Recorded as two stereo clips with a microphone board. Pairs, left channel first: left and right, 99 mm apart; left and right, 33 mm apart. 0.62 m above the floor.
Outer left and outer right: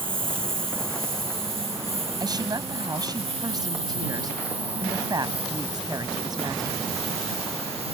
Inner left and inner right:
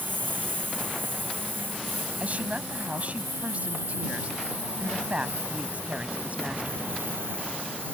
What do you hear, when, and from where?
0.0 s a lawn mower: 60° right (ahead or behind); by 7.9 s 80° right
2.2 s a woman speaking: 40° right (ahead or behind)